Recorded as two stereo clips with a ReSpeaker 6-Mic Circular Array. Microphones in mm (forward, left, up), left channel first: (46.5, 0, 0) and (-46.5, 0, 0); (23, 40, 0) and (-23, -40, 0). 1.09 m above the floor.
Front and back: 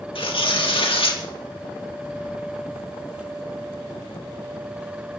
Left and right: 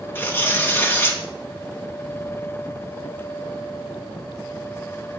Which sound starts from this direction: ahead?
Tearing paper, at 0.1 s.